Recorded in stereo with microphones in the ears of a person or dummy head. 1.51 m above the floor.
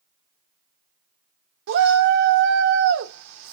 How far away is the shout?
About 0.7 m.